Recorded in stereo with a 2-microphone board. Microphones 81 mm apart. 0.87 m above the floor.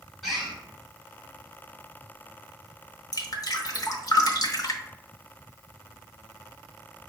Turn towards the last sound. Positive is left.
turn(degrees=50)  # may be behind; listen again after turning